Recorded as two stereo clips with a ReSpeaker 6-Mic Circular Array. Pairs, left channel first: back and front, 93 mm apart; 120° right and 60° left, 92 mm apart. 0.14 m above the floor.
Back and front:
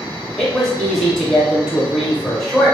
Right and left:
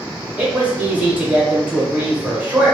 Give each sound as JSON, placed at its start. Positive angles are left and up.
{"t": 0.4, "sound": "a man speaking", "azimuth_deg": 100, "distance_m": 1.0}